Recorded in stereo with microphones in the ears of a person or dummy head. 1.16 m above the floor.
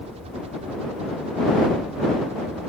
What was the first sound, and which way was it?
A helicopter, 35° right (ahead or behind).